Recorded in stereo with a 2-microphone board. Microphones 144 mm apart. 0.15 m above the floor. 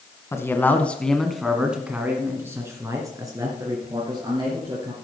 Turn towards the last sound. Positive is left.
turn(degrees=-30)  # may be behind; listen again after turning